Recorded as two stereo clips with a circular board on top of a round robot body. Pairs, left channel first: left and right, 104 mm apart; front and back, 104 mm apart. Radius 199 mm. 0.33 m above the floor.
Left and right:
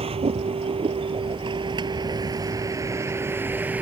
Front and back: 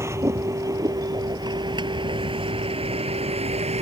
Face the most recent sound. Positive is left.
turn(degrees=-165)